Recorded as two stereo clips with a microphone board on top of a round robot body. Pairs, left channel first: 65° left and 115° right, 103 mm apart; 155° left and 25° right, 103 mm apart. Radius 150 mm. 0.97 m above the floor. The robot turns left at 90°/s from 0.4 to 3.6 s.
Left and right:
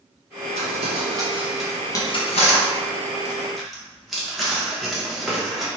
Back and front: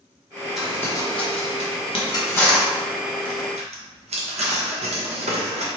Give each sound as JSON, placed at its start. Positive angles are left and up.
{"t": 0.6, "sound": "crumpling", "azimuth_deg": -110, "distance_m": 0.9}